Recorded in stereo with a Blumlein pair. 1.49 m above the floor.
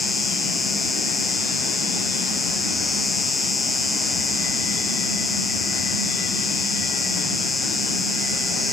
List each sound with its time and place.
0.0 s an insect: 10° left